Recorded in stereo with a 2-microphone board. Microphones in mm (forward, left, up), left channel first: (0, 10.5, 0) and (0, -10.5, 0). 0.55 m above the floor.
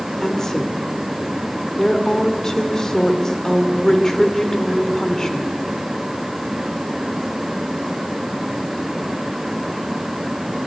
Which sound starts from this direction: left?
A woman speaking, at 0.2 s.